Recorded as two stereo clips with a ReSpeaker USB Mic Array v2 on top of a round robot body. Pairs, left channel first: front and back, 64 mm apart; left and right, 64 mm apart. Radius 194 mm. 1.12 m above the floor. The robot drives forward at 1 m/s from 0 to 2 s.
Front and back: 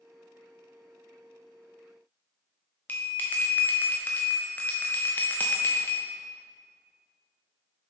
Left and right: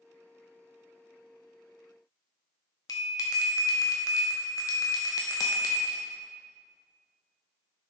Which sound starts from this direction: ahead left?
A bell, at 2.9 s.